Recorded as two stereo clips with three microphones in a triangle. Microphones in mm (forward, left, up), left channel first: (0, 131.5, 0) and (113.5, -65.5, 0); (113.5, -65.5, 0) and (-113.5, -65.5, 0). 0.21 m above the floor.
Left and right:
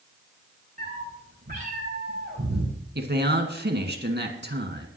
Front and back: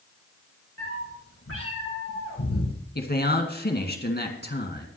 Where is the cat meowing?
10° right, 5 m; by 2.8 s 15° right, 4 m.